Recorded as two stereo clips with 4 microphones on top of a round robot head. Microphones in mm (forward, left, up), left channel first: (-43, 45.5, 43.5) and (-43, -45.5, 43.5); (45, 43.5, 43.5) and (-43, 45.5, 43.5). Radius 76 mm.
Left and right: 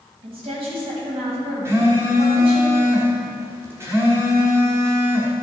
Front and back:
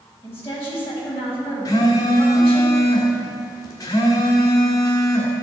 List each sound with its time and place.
0.2 s a woman speaking: 70° right, 3 m
1.6 s a phone buzzing: 35° right, 1.6 m